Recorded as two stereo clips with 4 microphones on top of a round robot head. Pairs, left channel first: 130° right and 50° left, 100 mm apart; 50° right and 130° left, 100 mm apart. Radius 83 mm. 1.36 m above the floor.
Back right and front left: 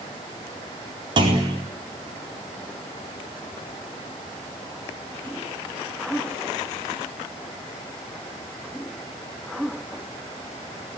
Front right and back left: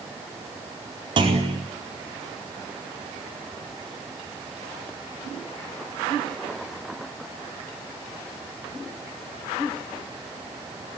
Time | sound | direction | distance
1.2 | a clunk | 90° left | 4.5 m